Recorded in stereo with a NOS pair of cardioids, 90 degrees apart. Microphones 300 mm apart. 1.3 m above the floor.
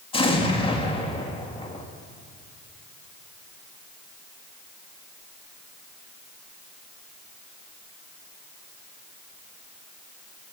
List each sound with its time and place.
0.1 s an explosion: 15° left, 2 m